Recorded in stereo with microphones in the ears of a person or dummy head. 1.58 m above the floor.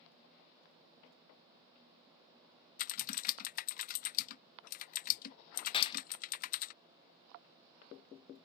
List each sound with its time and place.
2.8 s typing on a keyboard: 50° left (ahead or behind)
5.7 s a clap: 35° left (ahead or behind)